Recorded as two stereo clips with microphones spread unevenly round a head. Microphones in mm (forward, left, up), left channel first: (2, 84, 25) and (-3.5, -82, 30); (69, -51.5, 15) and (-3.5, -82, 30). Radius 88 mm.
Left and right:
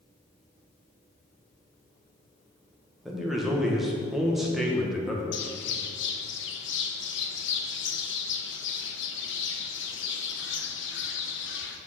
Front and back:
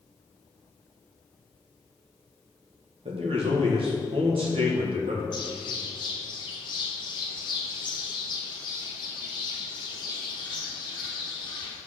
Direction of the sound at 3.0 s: Straight behind.